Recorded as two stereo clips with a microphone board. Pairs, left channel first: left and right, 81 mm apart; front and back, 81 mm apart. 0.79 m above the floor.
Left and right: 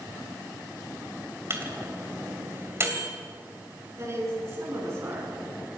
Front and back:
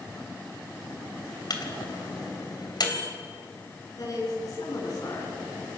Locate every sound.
1.5 s a microwave: 35° right, 3 m
4.0 s a woman speaking: 40° right, 9.5 m